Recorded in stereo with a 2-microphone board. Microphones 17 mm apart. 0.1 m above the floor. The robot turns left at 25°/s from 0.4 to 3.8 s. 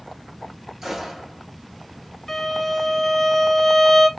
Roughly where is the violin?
Centre.